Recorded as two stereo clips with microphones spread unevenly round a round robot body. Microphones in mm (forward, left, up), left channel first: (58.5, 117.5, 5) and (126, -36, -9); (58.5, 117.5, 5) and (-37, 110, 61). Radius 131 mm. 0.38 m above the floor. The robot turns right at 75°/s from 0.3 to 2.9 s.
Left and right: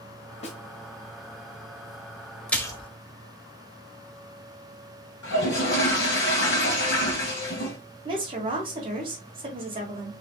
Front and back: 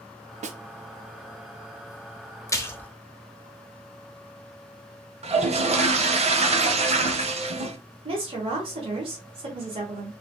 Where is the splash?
25° left, 0.9 m; by 2.9 s 55° left, 0.9 m.